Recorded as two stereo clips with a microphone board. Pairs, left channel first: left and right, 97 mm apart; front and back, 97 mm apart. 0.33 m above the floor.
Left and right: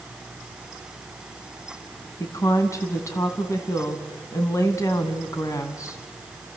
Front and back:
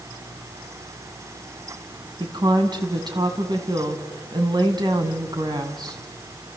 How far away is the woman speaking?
About 3 m.